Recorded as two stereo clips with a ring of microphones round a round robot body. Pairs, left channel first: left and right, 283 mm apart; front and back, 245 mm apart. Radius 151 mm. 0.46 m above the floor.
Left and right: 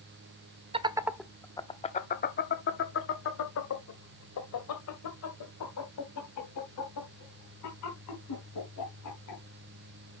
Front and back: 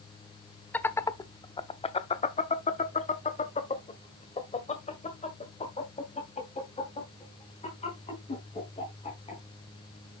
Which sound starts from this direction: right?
Laughter, at 0.7 s.